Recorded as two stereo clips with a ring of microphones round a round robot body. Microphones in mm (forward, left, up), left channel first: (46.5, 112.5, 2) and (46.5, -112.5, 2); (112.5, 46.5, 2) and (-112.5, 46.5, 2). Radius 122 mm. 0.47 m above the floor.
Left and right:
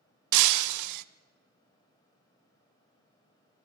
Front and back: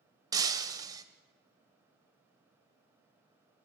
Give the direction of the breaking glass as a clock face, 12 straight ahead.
3 o'clock.